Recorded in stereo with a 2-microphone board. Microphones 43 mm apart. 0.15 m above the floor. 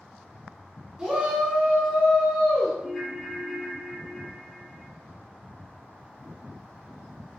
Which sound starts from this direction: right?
A shout, at 1.0 s.